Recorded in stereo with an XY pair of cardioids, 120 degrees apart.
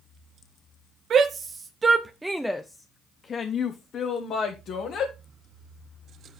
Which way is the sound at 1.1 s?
50° right.